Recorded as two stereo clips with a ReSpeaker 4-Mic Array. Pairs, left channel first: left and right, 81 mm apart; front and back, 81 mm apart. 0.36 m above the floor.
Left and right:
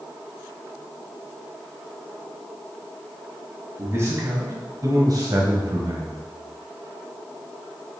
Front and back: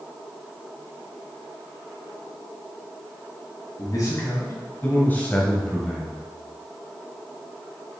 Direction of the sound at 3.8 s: 40° right.